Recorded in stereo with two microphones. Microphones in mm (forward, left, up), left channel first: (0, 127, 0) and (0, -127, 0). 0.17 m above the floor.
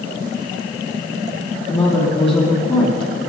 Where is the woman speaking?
20° left (ahead or behind), 7.5 m.